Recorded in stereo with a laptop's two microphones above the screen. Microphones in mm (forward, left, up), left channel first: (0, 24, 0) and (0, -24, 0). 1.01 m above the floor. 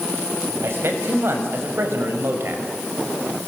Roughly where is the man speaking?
Right.